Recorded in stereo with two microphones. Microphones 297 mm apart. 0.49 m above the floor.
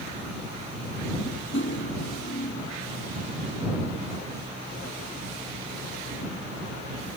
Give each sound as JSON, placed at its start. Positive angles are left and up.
{"t": 1.5, "sound": "cutlery clinking", "side_deg": 40}